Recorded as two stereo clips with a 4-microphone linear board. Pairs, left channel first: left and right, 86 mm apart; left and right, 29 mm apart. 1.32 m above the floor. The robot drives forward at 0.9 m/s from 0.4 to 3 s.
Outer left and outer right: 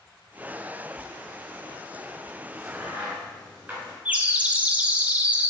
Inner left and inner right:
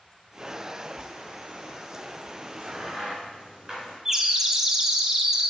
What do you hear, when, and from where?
2.5 s a crack: 15° right (ahead or behind), 3 m; by 4.0 s 20° right (ahead or behind), 2.5 m
4.0 s a bird: 15° right (ahead or behind), 0.6 m